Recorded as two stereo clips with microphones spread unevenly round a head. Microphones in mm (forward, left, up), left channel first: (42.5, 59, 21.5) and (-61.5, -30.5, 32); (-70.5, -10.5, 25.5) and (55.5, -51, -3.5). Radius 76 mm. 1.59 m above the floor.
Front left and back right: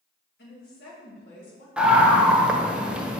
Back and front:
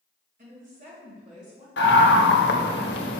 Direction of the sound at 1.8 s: 140° left.